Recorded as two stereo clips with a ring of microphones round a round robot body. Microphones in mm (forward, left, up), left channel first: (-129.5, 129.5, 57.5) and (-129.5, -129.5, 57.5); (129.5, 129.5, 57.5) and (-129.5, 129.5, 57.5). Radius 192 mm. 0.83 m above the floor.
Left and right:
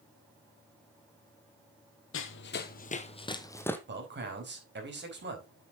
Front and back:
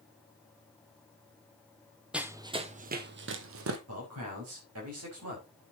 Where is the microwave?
No microwave in this recording.